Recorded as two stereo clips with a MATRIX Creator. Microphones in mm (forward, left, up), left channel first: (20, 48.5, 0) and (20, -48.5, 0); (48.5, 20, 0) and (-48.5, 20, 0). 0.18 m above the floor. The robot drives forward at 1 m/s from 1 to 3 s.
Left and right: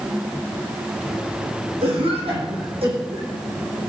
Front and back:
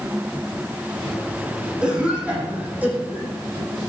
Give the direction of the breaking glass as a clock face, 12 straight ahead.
No breaking glass in this recording.